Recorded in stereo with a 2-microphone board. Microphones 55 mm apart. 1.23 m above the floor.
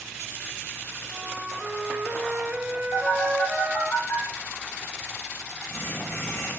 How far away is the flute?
About 0.9 m.